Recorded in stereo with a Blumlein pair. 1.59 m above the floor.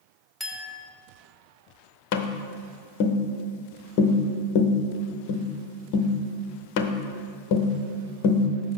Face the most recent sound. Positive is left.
turn(degrees=45)